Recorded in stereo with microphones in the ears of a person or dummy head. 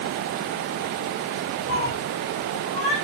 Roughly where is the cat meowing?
Left.